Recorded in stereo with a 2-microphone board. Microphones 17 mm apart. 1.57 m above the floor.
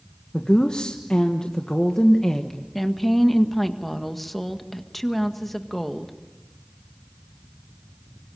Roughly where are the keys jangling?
I don't hear keys jangling.